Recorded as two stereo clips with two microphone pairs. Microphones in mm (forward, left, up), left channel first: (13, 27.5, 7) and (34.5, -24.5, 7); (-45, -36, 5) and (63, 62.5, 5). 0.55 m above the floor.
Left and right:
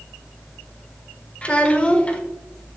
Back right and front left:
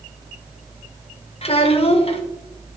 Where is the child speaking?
Straight behind, 1.0 m.